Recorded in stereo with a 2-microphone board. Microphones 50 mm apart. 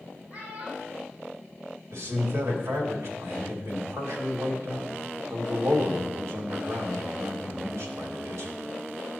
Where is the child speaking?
30° right (ahead or behind), 3.5 m.